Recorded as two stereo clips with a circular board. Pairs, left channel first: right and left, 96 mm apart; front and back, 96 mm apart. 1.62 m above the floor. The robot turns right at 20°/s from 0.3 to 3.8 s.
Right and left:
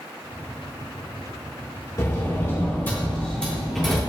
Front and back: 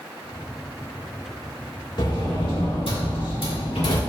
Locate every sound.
2.0 s a sliding door: 35° right, 2.0 m; by 4.0 s straight ahead, 2.0 m